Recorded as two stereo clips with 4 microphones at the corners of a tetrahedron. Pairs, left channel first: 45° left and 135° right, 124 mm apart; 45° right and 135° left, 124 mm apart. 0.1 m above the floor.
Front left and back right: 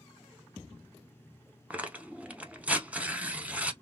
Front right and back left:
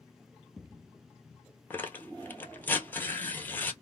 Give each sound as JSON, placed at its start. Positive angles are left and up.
{"t": 1.7, "sound": "tearing paper", "azimuth_deg": -80, "distance_m": 0.6}